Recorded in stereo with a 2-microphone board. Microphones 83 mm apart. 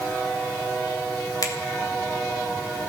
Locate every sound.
1.4 s a finger snap: 50° left (ahead or behind), 3.5 m